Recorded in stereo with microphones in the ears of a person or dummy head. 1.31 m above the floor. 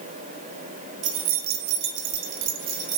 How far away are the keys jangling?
About 0.7 m.